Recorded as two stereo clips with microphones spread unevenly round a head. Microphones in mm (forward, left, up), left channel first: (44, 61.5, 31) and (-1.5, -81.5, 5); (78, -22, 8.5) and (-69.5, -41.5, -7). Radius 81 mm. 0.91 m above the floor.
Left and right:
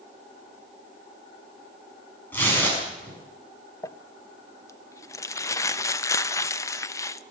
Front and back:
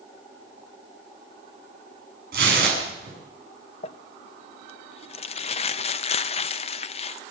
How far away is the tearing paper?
About 7 m.